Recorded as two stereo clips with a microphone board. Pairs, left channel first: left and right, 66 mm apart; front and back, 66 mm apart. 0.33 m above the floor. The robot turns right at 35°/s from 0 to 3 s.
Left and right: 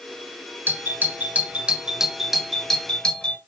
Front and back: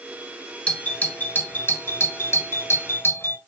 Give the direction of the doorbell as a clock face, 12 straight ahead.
2 o'clock.